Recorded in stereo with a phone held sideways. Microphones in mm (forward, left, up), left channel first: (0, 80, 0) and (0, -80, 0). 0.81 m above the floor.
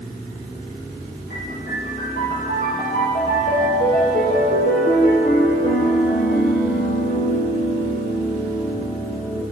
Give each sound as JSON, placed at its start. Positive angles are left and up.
{"t": 1.3, "sound": "a piano", "side_deg": 70, "distance_m": 5.0}